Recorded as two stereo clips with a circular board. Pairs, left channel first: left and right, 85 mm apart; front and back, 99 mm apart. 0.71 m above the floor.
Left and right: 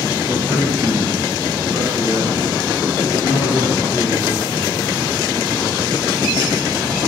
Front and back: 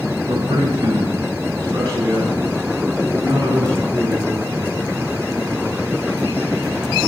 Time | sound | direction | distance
0.3 | a man speaking | 155° right | 3 m